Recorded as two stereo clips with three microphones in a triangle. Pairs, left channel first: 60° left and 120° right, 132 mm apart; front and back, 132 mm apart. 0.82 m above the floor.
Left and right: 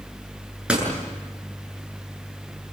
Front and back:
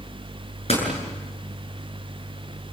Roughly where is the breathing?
I don't hear breathing.